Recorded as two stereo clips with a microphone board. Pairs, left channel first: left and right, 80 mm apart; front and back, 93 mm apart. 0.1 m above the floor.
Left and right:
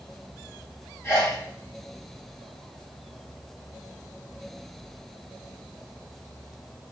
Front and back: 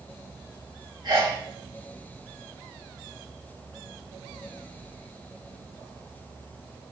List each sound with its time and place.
1.0 s a sneeze: 145° left, 3.5 m